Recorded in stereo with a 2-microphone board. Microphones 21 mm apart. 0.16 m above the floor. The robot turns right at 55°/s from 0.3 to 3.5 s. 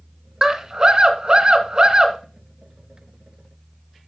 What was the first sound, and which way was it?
A scream, 145° right.